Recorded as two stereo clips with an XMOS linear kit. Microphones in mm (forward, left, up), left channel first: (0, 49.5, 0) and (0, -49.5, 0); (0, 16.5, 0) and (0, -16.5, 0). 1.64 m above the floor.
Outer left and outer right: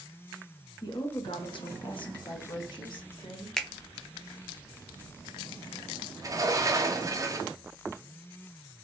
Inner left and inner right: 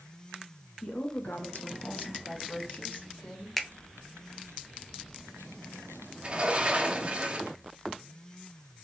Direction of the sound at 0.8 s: 40° left (ahead or behind).